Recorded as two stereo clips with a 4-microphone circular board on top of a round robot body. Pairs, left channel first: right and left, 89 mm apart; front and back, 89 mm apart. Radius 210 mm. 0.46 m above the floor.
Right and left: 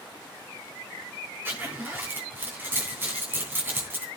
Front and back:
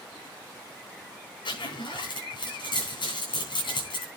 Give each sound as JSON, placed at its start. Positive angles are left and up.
{"t": 1.4, "sound": "a zipper", "azimuth_deg": 20, "distance_m": 7.5}